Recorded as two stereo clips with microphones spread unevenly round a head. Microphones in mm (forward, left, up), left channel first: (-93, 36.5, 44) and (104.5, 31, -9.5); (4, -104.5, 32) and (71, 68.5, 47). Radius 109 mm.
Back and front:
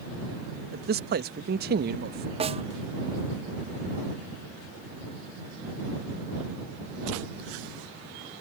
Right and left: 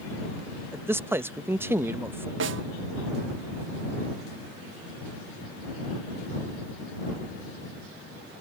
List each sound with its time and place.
0.7 s a man speaking: 10° right
2.4 s a snare drum: 55° left